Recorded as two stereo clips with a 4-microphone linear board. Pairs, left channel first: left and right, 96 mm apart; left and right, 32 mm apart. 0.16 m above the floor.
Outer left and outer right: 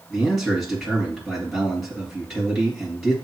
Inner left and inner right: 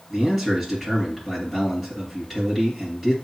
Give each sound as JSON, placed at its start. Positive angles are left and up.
{"t": 0.1, "sound": "a man speaking", "side_deg": 0, "distance_m": 3.5}